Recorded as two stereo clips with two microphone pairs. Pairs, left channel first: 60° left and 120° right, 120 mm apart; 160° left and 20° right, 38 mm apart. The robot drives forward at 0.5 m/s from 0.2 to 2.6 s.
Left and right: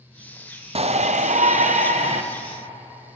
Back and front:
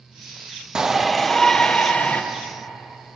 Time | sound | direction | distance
0.8 | a shout | 90° right | 0.5 m